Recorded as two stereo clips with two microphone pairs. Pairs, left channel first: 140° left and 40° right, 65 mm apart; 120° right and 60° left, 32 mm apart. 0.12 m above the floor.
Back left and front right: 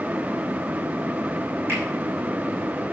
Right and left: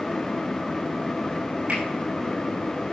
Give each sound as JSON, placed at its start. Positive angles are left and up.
{"t": 1.7, "sound": "a finger snap", "azimuth_deg": 10, "distance_m": 6.0}